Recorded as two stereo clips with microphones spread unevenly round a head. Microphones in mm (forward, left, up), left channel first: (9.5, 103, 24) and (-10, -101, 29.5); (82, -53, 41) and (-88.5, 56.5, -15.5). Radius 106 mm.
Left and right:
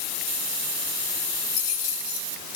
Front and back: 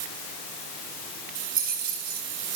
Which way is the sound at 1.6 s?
100° left.